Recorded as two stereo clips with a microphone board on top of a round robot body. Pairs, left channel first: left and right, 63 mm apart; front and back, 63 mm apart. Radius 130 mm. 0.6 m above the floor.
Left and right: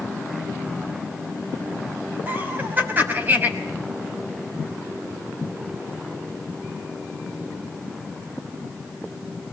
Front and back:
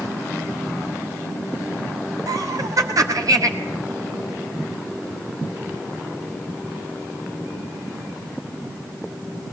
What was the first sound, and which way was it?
Laughter, 150° right.